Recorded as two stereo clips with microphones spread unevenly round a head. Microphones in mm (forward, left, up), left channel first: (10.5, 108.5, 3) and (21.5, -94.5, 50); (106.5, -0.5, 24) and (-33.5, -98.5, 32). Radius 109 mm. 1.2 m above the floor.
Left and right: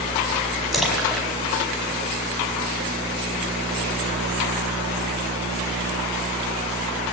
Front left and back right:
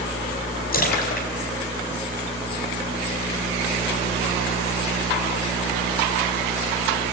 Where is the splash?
Straight ahead, 5 m.